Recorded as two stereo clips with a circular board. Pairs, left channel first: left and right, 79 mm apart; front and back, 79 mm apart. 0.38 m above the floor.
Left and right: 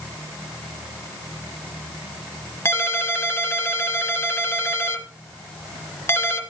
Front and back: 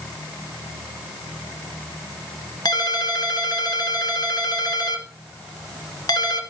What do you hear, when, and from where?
2.6 s a ringtone: 30° left, 1.6 m